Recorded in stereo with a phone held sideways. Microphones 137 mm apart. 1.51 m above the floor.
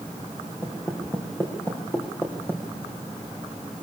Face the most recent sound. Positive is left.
turn(degrees=15)  # may be behind; listen again after turning